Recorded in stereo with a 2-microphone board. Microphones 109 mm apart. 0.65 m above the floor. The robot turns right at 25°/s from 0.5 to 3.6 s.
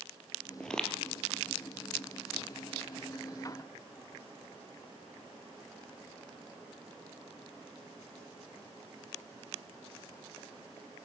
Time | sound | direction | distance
0.6 | footsteps | 5° left (ahead or behind) | 0.7 m